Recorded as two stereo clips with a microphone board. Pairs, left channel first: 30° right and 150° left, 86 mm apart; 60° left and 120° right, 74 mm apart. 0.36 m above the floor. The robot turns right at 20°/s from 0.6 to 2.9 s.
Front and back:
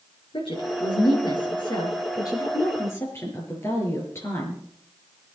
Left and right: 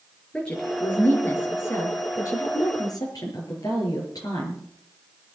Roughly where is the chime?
I don't hear a chime.